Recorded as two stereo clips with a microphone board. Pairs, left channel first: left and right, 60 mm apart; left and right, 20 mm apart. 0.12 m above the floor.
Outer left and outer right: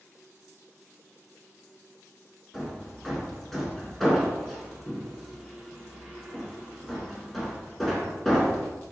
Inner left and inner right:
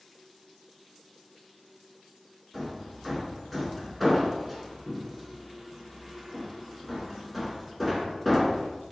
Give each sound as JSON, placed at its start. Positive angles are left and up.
{"t": 2.5, "sound": "hammering", "side_deg": 5, "distance_m": 1.2}